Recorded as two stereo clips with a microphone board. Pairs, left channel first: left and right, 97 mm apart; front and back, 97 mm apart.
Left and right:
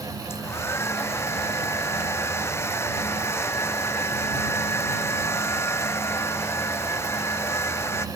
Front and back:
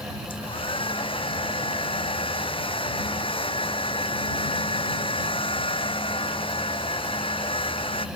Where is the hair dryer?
25° left.